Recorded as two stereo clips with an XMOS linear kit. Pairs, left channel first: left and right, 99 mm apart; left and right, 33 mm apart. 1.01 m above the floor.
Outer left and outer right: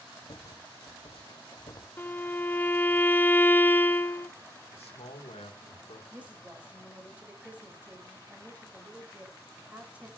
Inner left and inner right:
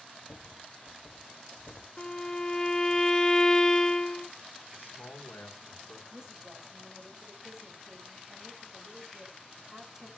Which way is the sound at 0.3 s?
45° left (ahead or behind).